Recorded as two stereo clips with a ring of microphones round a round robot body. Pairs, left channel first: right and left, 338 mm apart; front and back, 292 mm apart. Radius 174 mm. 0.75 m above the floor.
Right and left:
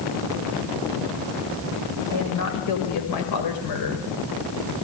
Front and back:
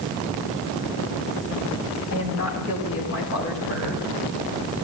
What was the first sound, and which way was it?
A woman speaking, 50° right.